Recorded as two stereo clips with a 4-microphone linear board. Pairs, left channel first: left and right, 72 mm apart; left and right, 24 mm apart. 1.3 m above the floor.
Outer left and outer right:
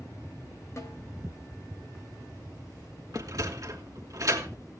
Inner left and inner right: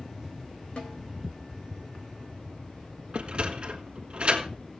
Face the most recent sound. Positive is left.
turn(degrees=-50)  # may be behind; listen again after turning